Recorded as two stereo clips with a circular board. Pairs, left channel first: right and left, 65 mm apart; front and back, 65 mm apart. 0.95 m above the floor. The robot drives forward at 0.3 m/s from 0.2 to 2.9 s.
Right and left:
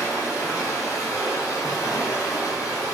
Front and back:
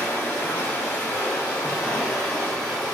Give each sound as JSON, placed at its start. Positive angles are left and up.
{"t": 0.0, "sound": "running water", "azimuth_deg": -50, "distance_m": 1.6}